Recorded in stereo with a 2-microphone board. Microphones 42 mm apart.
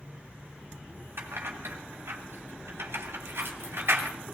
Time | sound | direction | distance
1.2 | keys jangling | 75° right (ahead or behind) | 3 m